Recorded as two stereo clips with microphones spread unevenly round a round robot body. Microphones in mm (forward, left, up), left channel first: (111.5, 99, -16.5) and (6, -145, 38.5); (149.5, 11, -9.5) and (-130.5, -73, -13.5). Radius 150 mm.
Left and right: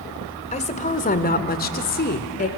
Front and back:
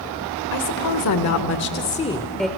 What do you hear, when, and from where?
0.5 s a woman speaking: 10° left, 1.5 m; by 2.5 s 110° left, 1.1 m